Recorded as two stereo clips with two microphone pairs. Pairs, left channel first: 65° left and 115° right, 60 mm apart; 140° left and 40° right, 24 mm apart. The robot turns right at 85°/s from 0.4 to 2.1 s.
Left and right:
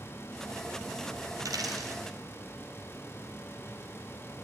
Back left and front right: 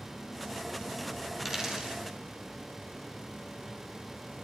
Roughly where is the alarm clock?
No alarm clock in this recording.